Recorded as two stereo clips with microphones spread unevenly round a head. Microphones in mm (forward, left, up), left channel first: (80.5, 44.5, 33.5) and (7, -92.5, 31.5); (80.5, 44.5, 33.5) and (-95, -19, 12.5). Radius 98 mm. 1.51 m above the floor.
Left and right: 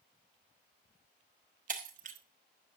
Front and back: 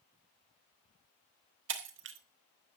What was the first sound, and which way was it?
Breaking glass, 155° right.